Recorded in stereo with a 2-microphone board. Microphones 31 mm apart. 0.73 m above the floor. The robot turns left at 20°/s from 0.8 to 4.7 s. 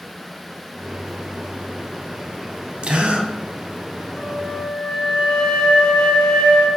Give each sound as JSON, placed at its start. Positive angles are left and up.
{"t": 2.8, "sound": "a gasp", "side_deg": -40, "distance_m": 0.7}
{"t": 4.1, "sound": "a flute", "side_deg": 40, "distance_m": 1.3}